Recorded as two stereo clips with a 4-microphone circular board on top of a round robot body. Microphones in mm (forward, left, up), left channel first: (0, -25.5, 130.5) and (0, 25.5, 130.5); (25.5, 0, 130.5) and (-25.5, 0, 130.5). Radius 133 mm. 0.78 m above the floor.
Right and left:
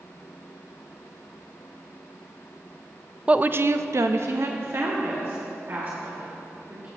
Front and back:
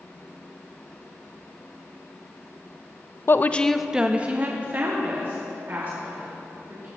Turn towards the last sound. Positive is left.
turn(degrees=140)